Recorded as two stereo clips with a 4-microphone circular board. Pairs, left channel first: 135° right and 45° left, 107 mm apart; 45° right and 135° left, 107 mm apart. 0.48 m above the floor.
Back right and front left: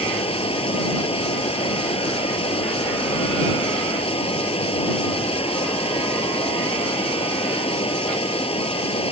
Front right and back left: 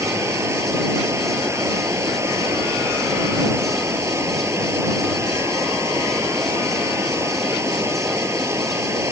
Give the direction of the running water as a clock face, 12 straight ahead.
5 o'clock.